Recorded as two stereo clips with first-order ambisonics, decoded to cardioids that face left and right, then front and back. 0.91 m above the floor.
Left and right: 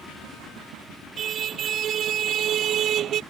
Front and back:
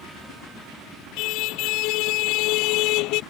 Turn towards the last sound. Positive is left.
turn(degrees=-35)